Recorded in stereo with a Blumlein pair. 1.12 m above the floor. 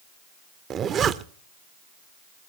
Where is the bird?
I don't hear a bird.